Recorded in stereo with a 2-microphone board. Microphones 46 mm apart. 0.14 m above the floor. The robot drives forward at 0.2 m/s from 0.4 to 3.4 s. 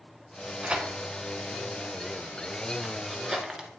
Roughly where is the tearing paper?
Right.